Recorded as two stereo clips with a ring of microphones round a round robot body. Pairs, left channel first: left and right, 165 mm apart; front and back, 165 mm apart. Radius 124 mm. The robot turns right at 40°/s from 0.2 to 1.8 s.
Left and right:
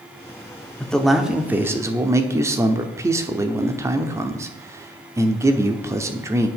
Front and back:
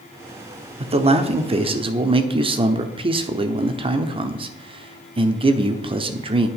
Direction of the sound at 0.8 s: 170° left.